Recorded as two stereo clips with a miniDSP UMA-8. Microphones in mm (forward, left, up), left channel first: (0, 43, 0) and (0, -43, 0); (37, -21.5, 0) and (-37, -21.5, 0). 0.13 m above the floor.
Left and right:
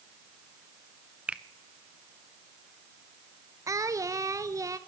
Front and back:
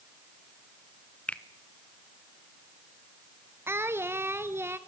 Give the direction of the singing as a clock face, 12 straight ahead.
4 o'clock.